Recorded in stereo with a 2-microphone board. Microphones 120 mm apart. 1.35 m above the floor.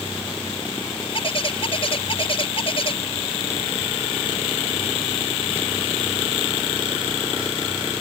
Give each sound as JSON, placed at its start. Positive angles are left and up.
{"t": 1.1, "sound": "a bird", "side_deg": 50}